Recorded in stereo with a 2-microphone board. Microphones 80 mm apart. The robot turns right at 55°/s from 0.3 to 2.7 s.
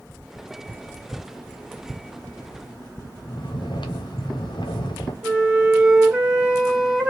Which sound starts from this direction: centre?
A flute, at 5.2 s.